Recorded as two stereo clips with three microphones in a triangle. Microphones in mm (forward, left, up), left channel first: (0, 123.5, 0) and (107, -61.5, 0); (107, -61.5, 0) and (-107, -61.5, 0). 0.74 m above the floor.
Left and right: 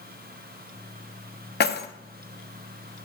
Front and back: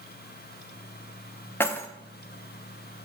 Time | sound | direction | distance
1.6 | keys jangling | 80° left | 0.5 m